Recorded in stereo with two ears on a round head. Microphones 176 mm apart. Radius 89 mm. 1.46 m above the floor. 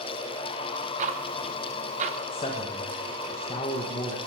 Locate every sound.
1.0 s ticking: 35° right (ahead or behind), 0.9 m
2.3 s a man speaking: 30° left (ahead or behind), 1.5 m